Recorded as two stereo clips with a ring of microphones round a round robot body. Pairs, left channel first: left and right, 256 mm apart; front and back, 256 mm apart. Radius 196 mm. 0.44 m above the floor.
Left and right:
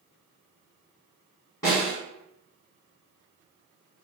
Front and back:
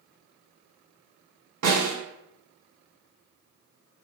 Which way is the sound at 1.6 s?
170° left.